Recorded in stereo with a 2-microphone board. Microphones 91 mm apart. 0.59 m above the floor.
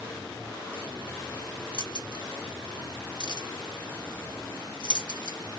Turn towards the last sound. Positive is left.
turn(degrees=55)  # may be behind; listen again after turning